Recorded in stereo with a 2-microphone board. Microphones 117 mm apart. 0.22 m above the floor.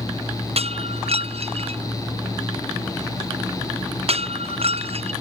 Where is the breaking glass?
60° right (ahead or behind).